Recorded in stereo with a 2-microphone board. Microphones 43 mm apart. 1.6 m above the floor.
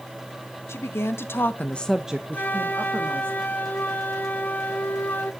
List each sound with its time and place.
0.7 s a woman speaking: 80° left, 1.5 m; by 3.3 s 60° right (ahead or behind), 1.8 m
2.3 s a flute: 45° left (ahead or behind), 0.8 m